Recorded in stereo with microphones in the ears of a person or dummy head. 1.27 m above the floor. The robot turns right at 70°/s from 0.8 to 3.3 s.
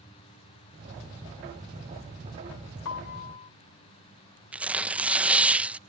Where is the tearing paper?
5° right (ahead or behind).